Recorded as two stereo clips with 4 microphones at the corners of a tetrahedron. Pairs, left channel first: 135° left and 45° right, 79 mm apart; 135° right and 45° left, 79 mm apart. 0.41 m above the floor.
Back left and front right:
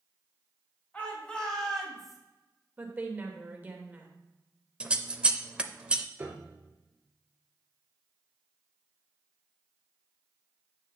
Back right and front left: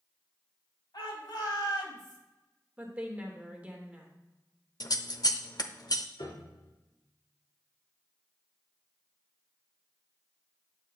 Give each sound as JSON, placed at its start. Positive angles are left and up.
{"t": 0.9, "sound": "a shout", "azimuth_deg": -155, "distance_m": 3.5}
{"t": 2.8, "sound": "a woman speaking", "azimuth_deg": -10, "distance_m": 1.4}
{"t": 4.8, "sound": "scissors", "azimuth_deg": -115, "distance_m": 0.5}
{"t": 6.2, "sound": "a piano", "azimuth_deg": -110, "distance_m": 1.6}